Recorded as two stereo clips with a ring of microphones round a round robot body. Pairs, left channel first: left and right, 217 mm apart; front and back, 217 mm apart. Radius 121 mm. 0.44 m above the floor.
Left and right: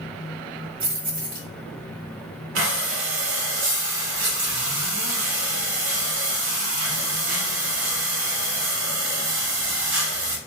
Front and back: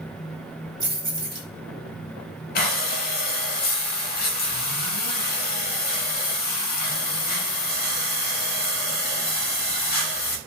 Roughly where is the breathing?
Ahead right.